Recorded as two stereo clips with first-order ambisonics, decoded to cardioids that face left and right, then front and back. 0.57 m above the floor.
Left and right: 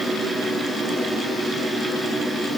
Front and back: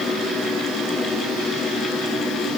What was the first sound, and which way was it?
Only background noise.